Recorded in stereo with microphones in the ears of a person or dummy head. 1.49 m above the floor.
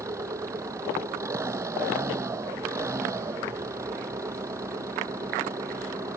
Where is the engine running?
15° right (ahead or behind).